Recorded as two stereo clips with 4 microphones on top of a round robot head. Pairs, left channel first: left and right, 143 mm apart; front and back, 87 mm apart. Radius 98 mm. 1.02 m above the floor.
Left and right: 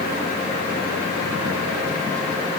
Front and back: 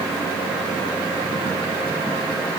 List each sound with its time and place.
Only background noise.